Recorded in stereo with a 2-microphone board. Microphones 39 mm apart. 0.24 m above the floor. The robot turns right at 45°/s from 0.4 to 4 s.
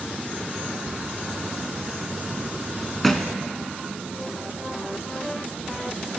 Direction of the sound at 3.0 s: 5° left (ahead or behind).